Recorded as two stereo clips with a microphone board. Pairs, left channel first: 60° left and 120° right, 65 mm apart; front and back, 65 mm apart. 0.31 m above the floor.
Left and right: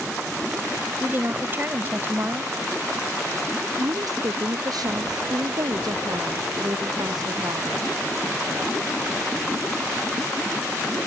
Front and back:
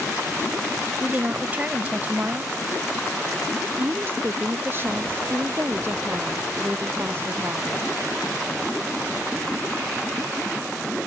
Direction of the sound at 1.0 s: 135° right.